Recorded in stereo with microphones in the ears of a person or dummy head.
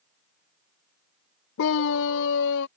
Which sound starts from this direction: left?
A scream, at 1.6 s.